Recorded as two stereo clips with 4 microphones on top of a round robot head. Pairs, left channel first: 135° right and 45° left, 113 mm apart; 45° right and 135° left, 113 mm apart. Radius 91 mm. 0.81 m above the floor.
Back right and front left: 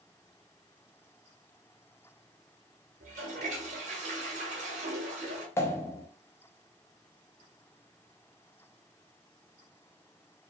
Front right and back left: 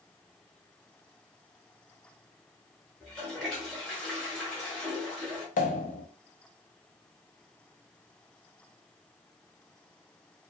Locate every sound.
3.0 s a toilet flushing: 40° left, 0.9 m
5.6 s a pop: 65° right, 0.5 m